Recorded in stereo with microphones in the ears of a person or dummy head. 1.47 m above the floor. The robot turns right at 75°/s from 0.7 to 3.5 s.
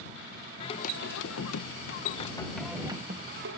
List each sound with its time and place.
0.6 s singing: 35° left; by 3.6 s 115° right